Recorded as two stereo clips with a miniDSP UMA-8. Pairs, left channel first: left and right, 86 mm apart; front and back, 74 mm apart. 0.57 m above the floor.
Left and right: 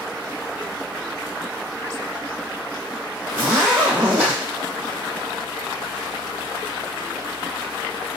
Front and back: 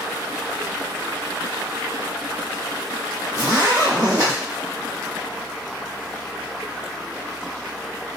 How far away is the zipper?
About 1.7 m.